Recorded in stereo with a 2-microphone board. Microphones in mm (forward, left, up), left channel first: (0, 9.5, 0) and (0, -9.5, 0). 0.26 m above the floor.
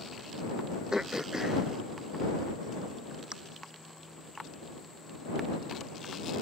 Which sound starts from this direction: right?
Throat clearing, at 0.9 s.